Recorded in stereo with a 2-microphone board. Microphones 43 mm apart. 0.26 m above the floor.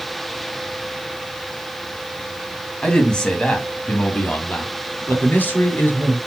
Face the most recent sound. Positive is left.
turn(degrees=55)  # may be behind; listen again after turning